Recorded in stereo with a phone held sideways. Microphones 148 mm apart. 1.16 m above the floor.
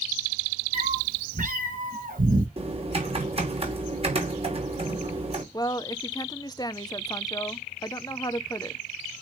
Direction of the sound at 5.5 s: 25° left (ahead or behind).